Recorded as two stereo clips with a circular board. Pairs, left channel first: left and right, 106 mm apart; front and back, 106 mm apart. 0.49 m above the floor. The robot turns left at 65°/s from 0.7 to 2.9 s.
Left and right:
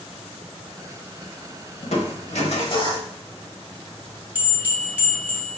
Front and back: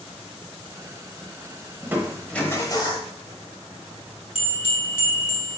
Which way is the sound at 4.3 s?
20° right.